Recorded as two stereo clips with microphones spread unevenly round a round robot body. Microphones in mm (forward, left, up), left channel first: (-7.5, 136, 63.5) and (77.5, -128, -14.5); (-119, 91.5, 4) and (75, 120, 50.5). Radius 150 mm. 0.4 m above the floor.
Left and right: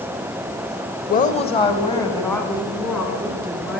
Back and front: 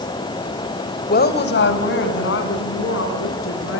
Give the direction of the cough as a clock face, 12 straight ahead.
No cough in this recording.